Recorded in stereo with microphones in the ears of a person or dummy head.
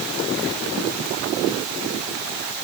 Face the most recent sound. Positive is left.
No sound to turn to.